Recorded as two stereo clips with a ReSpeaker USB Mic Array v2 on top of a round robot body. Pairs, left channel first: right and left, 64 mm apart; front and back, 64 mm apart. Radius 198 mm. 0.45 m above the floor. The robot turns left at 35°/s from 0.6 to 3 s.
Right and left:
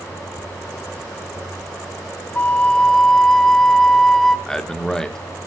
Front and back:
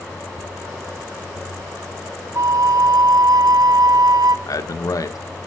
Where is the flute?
150° right, 0.6 m; by 4.4 s 170° right, 0.6 m.